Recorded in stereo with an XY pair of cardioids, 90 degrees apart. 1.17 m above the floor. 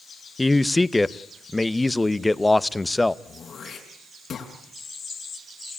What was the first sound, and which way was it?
A man speaking, 20° left.